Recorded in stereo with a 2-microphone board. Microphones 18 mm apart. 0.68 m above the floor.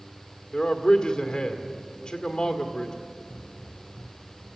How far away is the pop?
About 0.6 m.